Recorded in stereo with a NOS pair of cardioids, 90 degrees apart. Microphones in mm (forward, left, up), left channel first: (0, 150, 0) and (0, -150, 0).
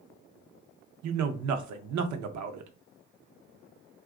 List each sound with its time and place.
1.0 s a man speaking: 70° right, 0.7 m